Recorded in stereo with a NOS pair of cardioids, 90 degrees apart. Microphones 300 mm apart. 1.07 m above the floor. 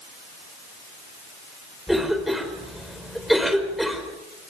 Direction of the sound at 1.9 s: Straight ahead.